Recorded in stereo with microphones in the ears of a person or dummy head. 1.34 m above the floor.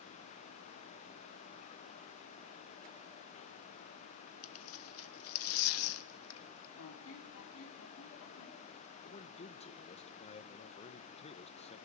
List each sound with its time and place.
4.4 s tearing paper: 75° left (ahead or behind), 1.3 m
6.8 s a squeak: 75° left (ahead or behind), 3 m
9.1 s a man speaking: 30° left (ahead or behind), 1.5 m